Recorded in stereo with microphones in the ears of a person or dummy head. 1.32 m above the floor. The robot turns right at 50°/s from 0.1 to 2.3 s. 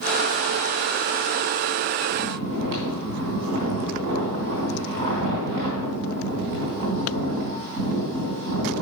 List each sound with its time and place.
2.1 s snoring: 65° right (ahead or behind), 2.5 m